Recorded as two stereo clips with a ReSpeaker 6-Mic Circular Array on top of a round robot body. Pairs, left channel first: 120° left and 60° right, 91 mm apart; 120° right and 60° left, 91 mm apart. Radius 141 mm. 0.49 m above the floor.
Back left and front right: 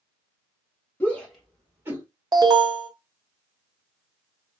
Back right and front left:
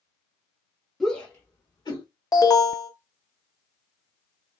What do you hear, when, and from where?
1.0 s a shout: 155° left, 1.2 m; by 2.0 s 115° right, 1.6 m
2.3 s an alarm: 85° right, 0.9 m